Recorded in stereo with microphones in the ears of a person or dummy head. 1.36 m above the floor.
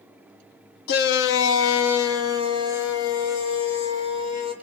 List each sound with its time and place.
0.9 s a shout: 60° left (ahead or behind), 1.3 m; by 4.5 s 65° left (ahead or behind), 5 m